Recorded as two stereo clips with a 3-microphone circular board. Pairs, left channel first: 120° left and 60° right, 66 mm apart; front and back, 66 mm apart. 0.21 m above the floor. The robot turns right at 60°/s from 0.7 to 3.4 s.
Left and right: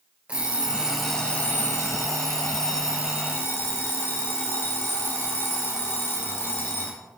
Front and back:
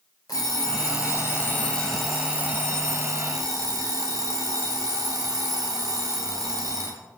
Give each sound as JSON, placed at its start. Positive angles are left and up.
{"t": 0.3, "sound": "an alarm clock", "azimuth_deg": 10, "distance_m": 2.5}